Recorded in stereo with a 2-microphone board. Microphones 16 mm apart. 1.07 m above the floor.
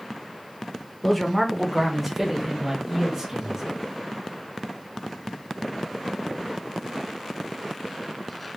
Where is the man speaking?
20° left (ahead or behind), 0.7 m; by 3.6 s 20° right (ahead or behind), 1.6 m.